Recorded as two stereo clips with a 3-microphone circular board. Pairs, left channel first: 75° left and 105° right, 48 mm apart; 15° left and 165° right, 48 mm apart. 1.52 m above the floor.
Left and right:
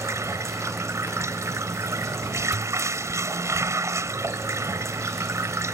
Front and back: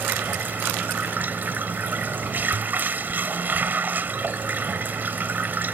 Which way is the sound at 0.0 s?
115° right.